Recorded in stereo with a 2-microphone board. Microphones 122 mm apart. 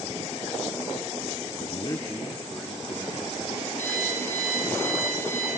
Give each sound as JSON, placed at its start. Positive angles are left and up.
{"t": 1.6, "sound": "a man speaking", "side_deg": 55, "distance_m": 0.6}
{"t": 3.8, "sound": "an alarm clock", "side_deg": 85, "distance_m": 7.0}